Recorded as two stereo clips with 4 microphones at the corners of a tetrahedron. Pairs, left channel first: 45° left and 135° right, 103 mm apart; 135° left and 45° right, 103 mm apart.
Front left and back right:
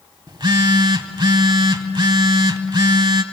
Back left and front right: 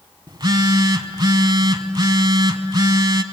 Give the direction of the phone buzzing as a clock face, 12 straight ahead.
3 o'clock.